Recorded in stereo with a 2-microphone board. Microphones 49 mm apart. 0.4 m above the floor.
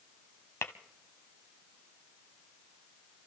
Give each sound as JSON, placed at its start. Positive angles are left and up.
{"t": 0.6, "sound": "tapping", "side_deg": 70, "distance_m": 1.1}